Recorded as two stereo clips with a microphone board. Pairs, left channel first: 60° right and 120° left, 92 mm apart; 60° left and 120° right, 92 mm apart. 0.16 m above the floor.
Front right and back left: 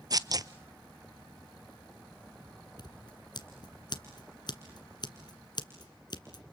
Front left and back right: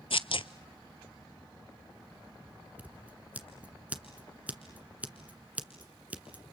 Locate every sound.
0.1 s tearing paper: 75° left, 0.6 m
2.8 s scissors: 50° right, 1.7 m